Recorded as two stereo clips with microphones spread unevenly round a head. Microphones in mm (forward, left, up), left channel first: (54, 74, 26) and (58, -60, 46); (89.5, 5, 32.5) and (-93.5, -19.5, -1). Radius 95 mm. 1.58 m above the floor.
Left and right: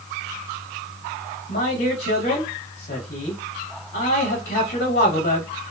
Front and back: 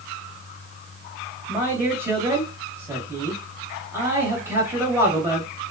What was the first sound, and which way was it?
A man speaking, 105° left.